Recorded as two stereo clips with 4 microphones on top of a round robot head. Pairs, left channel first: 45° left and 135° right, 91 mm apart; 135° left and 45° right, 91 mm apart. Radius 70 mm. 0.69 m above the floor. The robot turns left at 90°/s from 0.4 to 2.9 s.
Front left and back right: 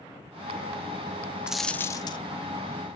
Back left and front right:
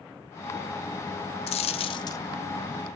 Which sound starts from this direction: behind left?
A dropped coin, at 1.5 s.